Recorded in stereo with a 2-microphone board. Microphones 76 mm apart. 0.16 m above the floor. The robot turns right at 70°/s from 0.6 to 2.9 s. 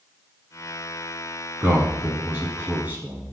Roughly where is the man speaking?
Centre.